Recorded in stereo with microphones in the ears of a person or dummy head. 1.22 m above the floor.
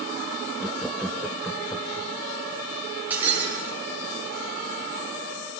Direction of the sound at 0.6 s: Centre (ahead or behind).